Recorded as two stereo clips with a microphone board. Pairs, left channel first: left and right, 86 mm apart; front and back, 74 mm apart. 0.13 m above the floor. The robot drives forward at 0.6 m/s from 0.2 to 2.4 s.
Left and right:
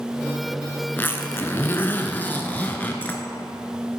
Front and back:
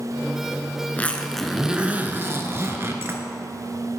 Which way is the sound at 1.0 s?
45° left.